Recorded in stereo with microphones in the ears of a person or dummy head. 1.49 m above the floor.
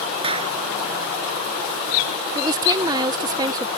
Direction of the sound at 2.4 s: 25° right (ahead or behind).